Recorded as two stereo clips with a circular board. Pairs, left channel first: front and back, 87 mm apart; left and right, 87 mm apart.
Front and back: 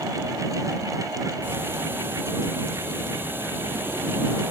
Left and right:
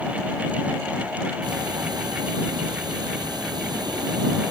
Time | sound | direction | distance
1.4 | ticking | 120° right | ?